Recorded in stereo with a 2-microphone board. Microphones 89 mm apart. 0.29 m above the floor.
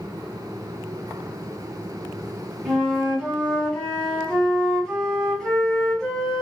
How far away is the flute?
About 1.5 m.